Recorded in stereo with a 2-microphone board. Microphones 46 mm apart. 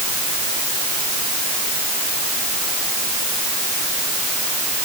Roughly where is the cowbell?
No cowbell in this recording.